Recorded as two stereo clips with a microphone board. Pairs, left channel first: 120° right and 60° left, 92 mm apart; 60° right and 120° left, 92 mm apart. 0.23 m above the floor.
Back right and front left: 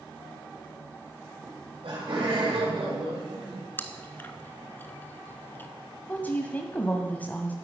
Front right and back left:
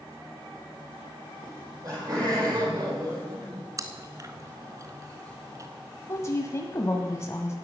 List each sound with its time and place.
1.4 s laughter: 70° left, 6.5 m; by 3.7 s 75° left, 5.5 m
3.8 s chewing: 175° left, 1.0 m
6.1 s a woman speaking: 70° right, 1.0 m